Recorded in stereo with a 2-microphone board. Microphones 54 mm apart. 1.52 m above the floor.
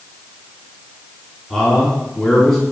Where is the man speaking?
Centre (ahead or behind), 4 m.